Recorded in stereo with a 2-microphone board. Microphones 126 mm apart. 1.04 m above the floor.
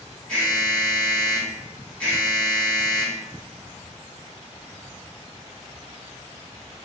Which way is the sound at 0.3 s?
5° left (ahead or behind).